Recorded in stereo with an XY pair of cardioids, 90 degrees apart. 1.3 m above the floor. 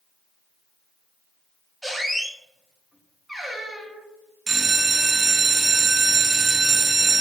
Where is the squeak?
Straight ahead, 0.8 m.